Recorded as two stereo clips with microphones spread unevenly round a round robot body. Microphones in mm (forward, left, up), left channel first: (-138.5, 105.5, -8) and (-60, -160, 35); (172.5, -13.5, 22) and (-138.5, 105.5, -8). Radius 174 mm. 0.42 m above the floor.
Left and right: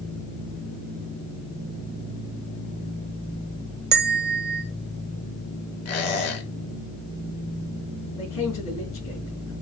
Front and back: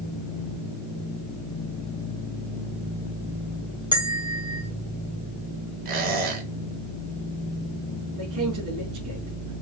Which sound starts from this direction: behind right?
A bell, at 3.9 s.